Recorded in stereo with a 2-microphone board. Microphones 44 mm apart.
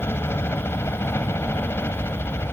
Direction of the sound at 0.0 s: 65° left (ahead or behind).